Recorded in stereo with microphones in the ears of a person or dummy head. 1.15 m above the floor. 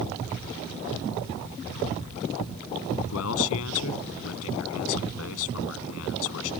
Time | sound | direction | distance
3.1 | a man speaking | 85° left | ?